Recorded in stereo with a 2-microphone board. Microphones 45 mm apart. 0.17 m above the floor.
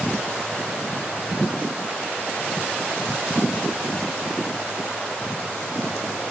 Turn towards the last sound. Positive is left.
No sound to turn to.